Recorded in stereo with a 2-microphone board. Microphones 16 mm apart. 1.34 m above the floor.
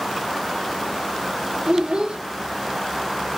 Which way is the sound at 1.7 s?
65° right (ahead or behind).